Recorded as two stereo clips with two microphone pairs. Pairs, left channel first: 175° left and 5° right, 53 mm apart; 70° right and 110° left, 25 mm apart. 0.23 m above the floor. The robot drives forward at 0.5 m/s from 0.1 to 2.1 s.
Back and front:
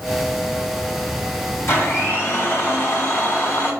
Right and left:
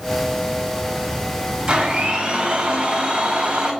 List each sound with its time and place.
1.7 s a blender: 165° left, 2.0 m